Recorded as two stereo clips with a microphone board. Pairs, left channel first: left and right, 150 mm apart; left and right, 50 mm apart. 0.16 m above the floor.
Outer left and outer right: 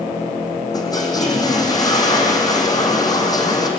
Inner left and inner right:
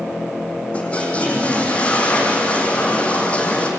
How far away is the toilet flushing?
About 3.5 m.